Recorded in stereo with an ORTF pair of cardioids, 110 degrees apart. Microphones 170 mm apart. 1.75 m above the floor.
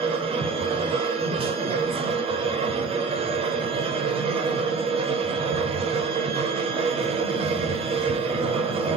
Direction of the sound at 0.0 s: 35° right.